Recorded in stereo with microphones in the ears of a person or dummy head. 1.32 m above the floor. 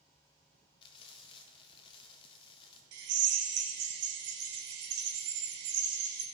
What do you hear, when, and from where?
0.8 s frying: 30° left (ahead or behind), 1.4 m
2.9 s a drill: 55° right (ahead or behind), 1.3 m